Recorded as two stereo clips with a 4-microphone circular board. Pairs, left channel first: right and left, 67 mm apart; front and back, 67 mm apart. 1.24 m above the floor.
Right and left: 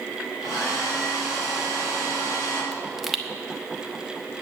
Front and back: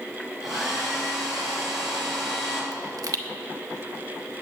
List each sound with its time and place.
0.4 s a hair dryer: 90° right, 4.5 m
2.7 s a pop: 175° left, 0.9 m